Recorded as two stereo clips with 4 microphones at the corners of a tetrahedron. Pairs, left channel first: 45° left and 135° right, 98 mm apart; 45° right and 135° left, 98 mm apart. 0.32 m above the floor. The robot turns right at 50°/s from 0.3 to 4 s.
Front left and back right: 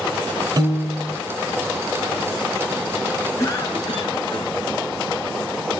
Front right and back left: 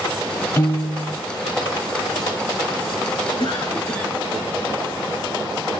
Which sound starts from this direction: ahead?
A cough, at 3.4 s.